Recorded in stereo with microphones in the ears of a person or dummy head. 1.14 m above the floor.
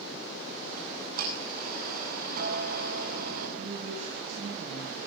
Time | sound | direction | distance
0.8 | ticking | 55° right (ahead or behind) | 8.5 m
3.6 | a woman speaking | 50° right (ahead or behind) | 7.5 m